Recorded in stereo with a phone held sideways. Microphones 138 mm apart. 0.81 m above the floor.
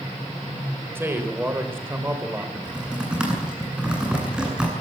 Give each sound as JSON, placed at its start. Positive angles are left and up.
{"t": 0.9, "sound": "a man speaking", "side_deg": -15, "distance_m": 4.0}
{"t": 2.5, "sound": "typing on a keyboard", "side_deg": -5, "distance_m": 9.0}